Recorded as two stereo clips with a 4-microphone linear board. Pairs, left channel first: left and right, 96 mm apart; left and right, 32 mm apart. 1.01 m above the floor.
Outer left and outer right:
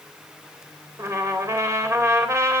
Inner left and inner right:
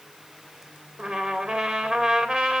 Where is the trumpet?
30° right (ahead or behind), 3.5 m.